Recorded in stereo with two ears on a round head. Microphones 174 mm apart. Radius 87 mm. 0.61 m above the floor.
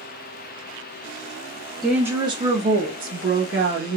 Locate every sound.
1.8 s a woman speaking: centre (ahead or behind), 0.9 m; by 4.0 s 60° right (ahead or behind), 1.8 m